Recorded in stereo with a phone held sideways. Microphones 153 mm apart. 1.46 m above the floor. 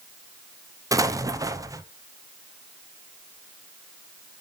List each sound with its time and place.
0.9 s an explosion: 20° right (ahead or behind), 0.7 m